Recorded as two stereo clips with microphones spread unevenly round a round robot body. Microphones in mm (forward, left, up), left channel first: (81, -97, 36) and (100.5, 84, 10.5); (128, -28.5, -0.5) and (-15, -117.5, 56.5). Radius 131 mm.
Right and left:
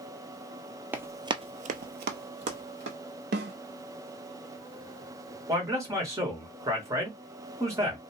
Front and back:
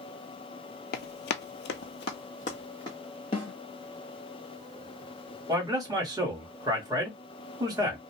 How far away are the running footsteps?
About 0.6 m.